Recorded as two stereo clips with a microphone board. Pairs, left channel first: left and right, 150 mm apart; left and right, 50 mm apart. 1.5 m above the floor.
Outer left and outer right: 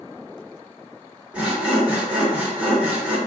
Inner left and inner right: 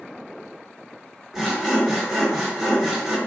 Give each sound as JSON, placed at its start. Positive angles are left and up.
{"t": 1.3, "sound": "sawing", "side_deg": -10, "distance_m": 0.9}